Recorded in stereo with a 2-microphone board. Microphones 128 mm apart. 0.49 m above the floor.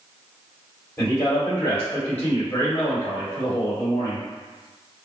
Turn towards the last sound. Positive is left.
turn(degrees=20)  # may be behind; listen again after turning